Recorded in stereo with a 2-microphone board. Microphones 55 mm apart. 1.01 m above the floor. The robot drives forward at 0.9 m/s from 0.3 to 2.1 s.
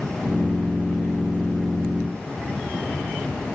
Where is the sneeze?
No sneeze in this recording.